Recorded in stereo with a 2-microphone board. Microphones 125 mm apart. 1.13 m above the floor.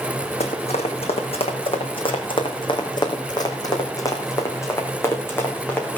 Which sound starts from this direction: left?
Running footsteps, at 0.4 s.